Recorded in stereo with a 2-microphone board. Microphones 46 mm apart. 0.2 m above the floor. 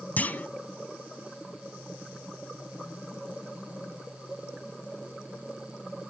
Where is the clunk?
40° left (ahead or behind), 0.9 m.